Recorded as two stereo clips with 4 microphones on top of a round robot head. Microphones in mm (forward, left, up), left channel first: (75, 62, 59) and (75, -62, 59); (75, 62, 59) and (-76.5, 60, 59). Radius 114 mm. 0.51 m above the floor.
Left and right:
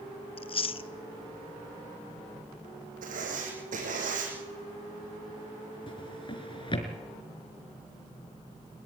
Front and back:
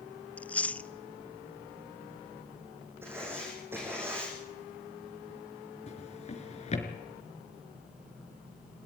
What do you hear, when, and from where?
0.4 s chewing: 80° left, 0.9 m
3.0 s writing: 100° right, 6 m
5.9 s a drawer: 45° left, 4 m